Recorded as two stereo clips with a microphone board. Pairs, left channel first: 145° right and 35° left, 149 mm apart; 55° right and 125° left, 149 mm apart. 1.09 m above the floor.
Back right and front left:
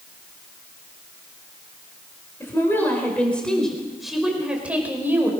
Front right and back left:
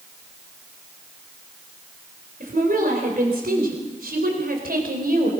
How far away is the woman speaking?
About 4 m.